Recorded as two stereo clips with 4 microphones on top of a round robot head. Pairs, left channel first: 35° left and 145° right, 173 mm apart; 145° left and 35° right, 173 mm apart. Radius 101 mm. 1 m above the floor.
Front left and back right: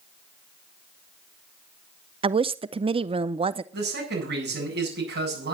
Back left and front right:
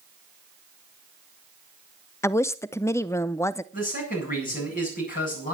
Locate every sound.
2.2 s a woman speaking: 155° right, 0.5 m
3.7 s a man speaking: 175° right, 8.5 m